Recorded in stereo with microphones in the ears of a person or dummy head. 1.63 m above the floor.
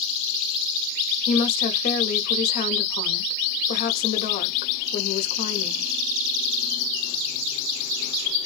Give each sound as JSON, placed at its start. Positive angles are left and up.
{"t": 1.3, "sound": "a woman speaking", "side_deg": 50, "distance_m": 0.9}